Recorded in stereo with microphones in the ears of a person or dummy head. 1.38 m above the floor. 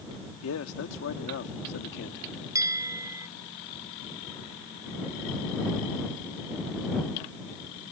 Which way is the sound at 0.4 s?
80° left.